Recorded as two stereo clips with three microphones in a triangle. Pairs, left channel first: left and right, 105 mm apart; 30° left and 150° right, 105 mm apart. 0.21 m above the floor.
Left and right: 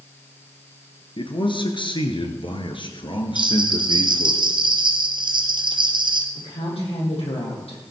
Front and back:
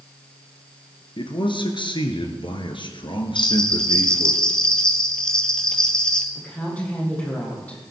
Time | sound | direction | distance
1.2 | a man speaking | 60° left | 2.5 m
3.4 | a bell | 50° right | 1.8 m
6.3 | a woman speaking | 105° left | 7.5 m